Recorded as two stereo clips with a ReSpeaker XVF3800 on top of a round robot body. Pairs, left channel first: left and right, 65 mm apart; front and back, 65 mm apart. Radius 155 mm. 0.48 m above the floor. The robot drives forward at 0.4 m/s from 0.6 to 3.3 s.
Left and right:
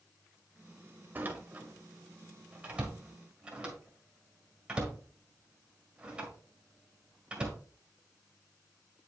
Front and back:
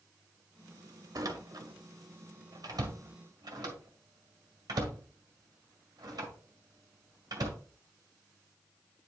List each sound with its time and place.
1.1 s a door slam: 150° right, 1.1 m; by 7.6 s 165° right, 1.9 m